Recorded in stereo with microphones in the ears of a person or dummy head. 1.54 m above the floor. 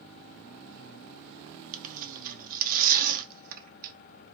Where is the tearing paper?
45° right (ahead or behind), 0.9 m.